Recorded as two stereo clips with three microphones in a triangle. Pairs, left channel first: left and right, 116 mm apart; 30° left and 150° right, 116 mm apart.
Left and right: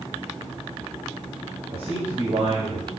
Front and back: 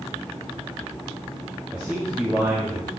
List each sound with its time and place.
1.7 s a man speaking: 70° right, 2.5 m